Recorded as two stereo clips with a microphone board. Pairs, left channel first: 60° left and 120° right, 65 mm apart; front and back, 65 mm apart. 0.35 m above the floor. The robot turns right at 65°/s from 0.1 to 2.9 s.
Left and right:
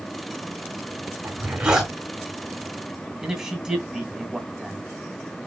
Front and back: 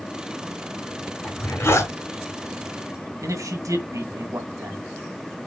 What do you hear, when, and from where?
1.2 s a zipper: 75° right, 3 m; by 1.9 s 30° right, 3 m
3.2 s a man speaking: 160° left, 3 m